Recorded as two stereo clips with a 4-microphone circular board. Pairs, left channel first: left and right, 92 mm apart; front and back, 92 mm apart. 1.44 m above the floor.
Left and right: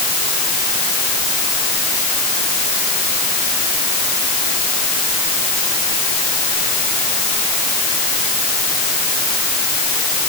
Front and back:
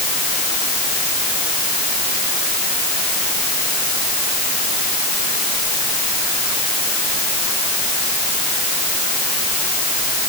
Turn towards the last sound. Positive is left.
No sound to turn to.